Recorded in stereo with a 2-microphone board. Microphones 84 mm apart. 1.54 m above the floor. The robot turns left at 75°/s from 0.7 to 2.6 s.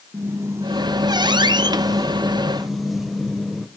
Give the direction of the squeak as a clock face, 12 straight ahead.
1 o'clock.